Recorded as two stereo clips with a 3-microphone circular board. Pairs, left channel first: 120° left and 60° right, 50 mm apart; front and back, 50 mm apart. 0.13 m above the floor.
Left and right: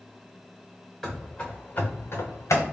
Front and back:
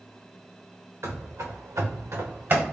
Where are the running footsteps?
150° right, 0.9 m; by 2.6 s 130° left, 0.9 m.